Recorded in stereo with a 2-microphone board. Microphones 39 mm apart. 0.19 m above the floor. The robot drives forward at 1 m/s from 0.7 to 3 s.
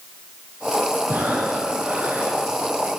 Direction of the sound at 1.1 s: 75° right (ahead or behind).